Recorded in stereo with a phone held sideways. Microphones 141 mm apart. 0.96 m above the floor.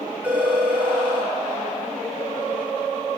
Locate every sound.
0.2 s a phone ringing: 10° right (ahead or behind), 3.5 m